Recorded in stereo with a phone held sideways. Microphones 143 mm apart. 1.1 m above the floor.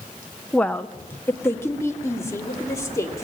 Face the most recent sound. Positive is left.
turn(degrees=20)  # may be behind; listen again after turning